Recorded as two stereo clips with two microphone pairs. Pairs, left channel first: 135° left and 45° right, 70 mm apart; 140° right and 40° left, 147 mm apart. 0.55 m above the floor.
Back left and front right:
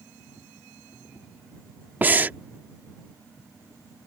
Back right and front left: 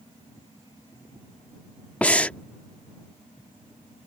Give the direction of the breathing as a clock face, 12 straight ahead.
2 o'clock.